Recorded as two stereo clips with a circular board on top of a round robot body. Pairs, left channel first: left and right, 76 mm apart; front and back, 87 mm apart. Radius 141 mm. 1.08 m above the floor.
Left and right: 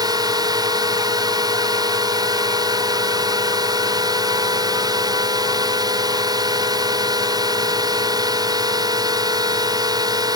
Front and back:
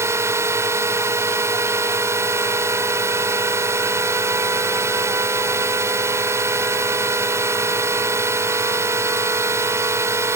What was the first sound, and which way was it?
A drone, 120° right.